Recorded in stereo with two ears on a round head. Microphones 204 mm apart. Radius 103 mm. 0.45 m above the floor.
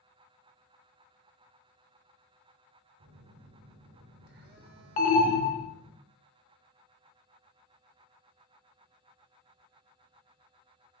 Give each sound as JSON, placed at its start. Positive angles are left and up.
{"t": 3.0, "sound": "a phone buzzing", "side_deg": -45, "distance_m": 0.6}
{"t": 5.0, "sound": "an alarm", "side_deg": 35, "distance_m": 0.5}